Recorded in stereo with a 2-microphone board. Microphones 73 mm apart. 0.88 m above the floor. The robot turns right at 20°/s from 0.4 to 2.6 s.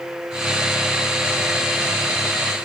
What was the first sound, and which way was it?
Only background noise.